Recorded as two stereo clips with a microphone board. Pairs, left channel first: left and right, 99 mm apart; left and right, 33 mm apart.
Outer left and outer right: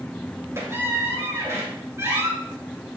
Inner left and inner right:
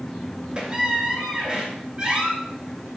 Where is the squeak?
30° right (ahead or behind), 2.5 m.